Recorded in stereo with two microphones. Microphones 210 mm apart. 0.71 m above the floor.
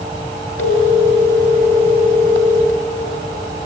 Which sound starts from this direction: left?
A phone ringing, at 0.6 s.